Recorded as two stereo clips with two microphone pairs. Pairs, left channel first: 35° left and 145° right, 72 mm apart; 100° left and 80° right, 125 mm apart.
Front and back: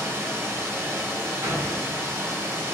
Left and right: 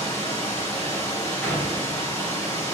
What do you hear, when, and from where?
0.0 s running water: 165° left, 2.5 m
1.4 s a door slam: straight behind, 2.5 m